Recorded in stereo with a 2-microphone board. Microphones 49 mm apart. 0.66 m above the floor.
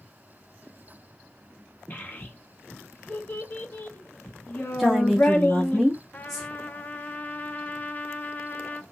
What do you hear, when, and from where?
1.9 s a child speaking: 35° left (ahead or behind), 1.1 m
4.8 s a woman speaking: centre (ahead or behind), 0.9 m
6.1 s a trumpet: 30° left (ahead or behind), 0.5 m